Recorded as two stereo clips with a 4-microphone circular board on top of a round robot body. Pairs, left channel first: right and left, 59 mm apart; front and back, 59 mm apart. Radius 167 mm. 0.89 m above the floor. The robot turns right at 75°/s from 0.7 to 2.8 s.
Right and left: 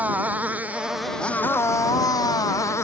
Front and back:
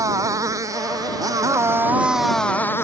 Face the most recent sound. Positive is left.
turn(degrees=-50)